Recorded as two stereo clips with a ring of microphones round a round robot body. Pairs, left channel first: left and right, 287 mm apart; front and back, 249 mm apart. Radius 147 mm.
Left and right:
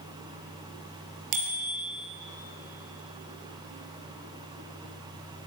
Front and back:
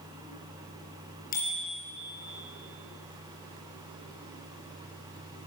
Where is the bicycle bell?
65° right, 5 m.